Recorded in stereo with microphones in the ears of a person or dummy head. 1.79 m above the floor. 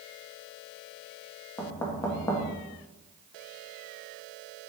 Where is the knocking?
15° left (ahead or behind), 1.5 m.